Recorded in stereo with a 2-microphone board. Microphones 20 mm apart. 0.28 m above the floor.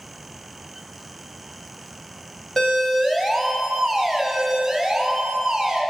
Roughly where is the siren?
Left.